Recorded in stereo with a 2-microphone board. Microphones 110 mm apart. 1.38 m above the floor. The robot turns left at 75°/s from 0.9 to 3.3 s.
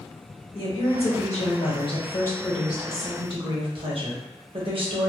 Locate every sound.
0.6 s a woman speaking: 125° left, 1.1 m; by 5.1 s 55° right, 1.1 m